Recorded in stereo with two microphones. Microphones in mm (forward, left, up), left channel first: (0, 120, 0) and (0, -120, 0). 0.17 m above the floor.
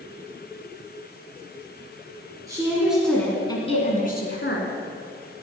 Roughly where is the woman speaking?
Centre.